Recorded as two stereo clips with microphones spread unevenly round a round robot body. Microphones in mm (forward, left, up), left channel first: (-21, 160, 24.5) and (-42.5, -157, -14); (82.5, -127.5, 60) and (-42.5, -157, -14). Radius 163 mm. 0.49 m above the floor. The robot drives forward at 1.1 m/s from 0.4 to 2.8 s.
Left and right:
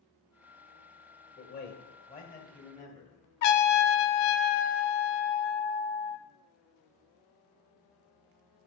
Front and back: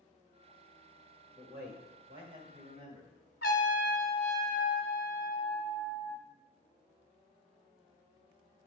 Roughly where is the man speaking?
Behind left.